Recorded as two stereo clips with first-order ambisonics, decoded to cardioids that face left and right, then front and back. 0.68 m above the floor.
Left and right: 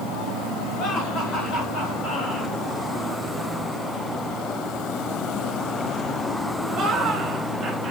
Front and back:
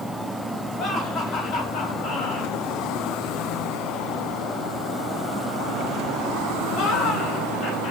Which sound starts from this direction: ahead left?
Laughter, at 0.8 s.